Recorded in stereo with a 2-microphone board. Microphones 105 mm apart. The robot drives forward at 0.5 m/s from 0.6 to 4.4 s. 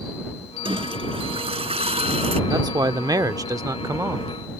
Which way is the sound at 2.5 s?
40° right (ahead or behind).